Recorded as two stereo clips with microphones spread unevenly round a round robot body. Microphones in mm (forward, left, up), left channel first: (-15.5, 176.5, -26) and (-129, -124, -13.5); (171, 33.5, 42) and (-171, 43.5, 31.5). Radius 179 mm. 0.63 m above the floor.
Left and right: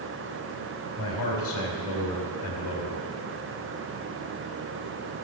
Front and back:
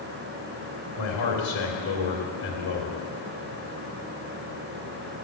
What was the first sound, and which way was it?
A man speaking, 20° left.